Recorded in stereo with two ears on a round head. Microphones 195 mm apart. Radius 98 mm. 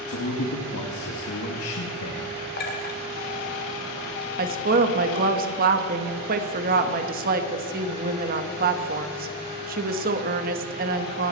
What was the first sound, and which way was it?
A man speaking, 75° left (ahead or behind).